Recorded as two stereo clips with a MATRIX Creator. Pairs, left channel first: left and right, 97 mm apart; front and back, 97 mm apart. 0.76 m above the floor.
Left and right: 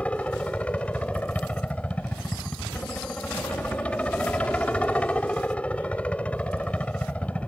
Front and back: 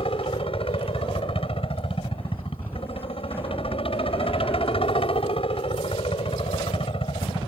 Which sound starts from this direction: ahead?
A helicopter, at 0.0 s.